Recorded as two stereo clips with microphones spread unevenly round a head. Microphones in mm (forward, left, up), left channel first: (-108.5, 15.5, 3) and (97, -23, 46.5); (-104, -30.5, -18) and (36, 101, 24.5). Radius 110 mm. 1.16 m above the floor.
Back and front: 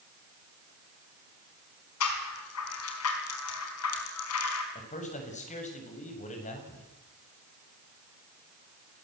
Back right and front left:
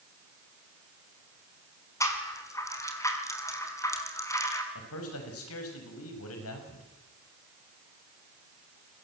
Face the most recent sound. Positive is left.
turn(degrees=-135)